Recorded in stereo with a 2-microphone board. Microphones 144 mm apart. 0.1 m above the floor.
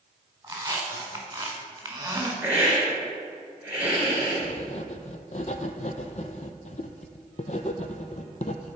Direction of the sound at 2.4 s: 15° right (ahead or behind).